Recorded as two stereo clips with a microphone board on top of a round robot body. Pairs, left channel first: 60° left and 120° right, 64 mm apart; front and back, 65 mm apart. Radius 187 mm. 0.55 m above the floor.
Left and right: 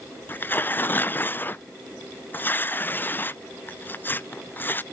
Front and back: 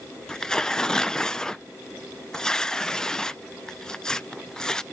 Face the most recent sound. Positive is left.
turn(degrees=70)